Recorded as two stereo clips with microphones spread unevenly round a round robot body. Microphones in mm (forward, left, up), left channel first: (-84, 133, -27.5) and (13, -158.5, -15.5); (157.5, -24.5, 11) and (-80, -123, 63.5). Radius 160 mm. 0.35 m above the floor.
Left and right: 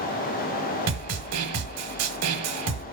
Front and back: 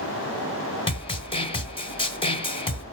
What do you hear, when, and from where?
0.9 s a snare drum: 35° right, 1.1 m